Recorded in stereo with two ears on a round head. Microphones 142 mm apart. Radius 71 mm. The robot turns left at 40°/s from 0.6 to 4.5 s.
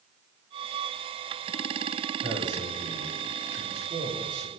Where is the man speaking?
40° right, 9 m; by 4.5 s 130° right, 9 m.